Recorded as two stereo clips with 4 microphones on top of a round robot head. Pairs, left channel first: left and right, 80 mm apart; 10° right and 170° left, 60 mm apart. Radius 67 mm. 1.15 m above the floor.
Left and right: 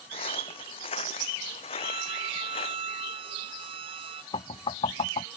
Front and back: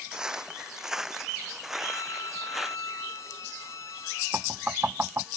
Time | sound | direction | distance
0.1 | footsteps | 95° left | ?
1.8 | a violin | 65° right | ?
4.3 | knocking | 110° left | ?